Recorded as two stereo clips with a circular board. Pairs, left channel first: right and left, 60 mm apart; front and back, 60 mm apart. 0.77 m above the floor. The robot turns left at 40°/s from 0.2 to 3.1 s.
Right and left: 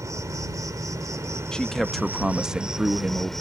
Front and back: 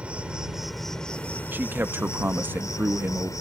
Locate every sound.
0.0 s an insect: 115° left; by 3.4 s 5° right
1.5 s a man speaking: 155° right; by 3.3 s 140° left